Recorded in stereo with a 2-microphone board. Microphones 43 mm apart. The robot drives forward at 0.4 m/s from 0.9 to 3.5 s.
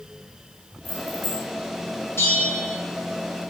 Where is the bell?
75° left (ahead or behind), 4 m.